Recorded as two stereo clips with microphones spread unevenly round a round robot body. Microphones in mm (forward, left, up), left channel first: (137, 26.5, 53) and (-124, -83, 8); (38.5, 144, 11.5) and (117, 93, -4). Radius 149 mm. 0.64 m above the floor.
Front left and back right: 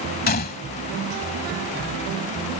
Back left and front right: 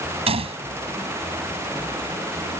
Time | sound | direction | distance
0.3 | a gunshot | 40° right | ?